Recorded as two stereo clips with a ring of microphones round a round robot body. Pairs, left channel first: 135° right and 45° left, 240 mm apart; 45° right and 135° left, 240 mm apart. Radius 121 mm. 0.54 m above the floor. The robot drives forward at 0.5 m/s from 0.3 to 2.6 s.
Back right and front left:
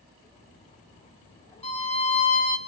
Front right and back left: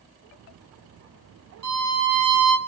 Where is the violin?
155° left, 1.0 m; by 2.6 s 165° left, 1.4 m.